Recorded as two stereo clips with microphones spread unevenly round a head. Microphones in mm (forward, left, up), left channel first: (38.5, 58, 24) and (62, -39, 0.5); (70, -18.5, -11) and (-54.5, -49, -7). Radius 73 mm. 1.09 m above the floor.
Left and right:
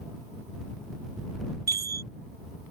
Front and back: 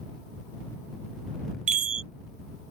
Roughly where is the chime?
Behind right.